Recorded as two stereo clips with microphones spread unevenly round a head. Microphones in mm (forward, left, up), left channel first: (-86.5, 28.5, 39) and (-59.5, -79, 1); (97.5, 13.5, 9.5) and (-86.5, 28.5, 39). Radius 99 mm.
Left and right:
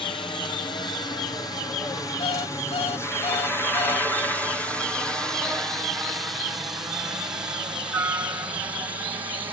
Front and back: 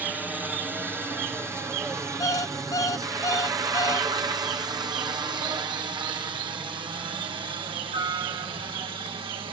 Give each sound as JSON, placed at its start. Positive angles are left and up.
{"t": 0.0, "sound": "a helicopter", "azimuth_deg": 85}
{"t": 2.2, "sound": "an alarm clock", "azimuth_deg": 70}